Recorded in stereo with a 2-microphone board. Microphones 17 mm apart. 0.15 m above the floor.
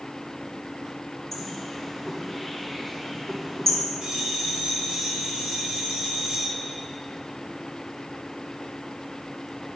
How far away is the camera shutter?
I don't hear a camera shutter.